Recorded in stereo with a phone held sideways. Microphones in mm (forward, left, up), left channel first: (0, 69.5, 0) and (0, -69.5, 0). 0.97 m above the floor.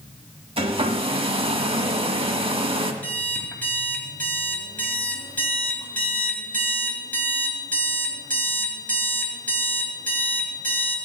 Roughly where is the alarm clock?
Centre.